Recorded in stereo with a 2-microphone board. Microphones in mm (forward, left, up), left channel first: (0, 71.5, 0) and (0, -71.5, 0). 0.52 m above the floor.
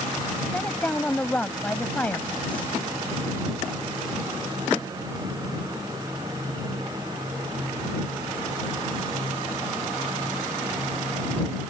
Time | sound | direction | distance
0.5 | a woman speaking | 10° left (ahead or behind) | ?